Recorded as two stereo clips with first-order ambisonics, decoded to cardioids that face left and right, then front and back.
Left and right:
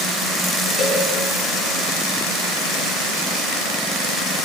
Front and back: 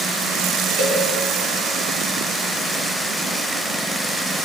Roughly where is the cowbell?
Behind.